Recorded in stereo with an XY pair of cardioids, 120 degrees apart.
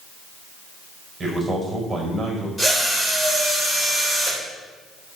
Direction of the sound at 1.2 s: 25° right.